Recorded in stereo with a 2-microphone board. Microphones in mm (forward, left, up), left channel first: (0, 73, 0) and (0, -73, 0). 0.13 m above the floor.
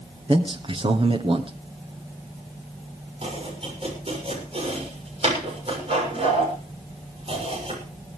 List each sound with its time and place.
0.3 s a man speaking: 40° right (ahead or behind), 1.6 m
3.2 s chopping: 45° right (ahead or behind), 7 m